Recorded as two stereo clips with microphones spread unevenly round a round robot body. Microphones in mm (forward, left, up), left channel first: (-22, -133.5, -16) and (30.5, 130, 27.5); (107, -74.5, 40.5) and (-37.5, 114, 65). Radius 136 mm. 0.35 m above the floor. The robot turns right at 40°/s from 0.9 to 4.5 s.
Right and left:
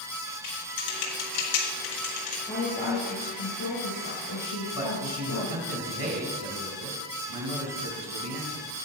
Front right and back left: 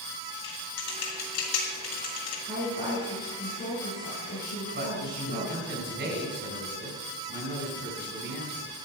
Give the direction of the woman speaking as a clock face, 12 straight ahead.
6 o'clock.